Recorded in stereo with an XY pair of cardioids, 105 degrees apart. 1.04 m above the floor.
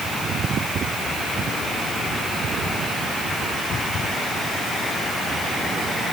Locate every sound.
Only background noise.